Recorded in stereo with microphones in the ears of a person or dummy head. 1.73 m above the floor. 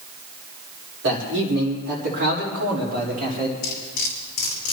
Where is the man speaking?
65° right (ahead or behind), 3.5 m; by 3.5 s 50° right (ahead or behind), 4.5 m.